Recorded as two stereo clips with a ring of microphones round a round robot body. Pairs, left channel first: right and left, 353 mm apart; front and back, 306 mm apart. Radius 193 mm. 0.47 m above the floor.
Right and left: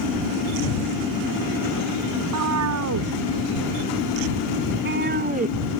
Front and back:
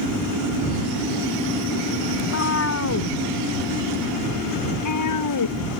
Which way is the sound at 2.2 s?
45° left.